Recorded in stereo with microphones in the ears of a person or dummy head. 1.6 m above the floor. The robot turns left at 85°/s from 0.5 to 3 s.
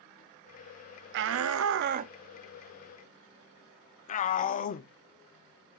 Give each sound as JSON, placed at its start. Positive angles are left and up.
{"t": 1.1, "sound": "a shout", "side_deg": -65, "distance_m": 0.6}